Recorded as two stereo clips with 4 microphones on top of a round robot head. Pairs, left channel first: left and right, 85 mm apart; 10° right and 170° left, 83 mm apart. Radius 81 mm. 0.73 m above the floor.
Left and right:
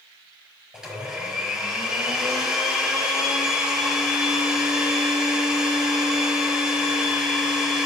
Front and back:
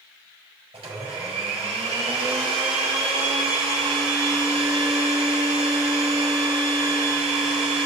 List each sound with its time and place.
0.7 s a blender: 175° right, 4.5 m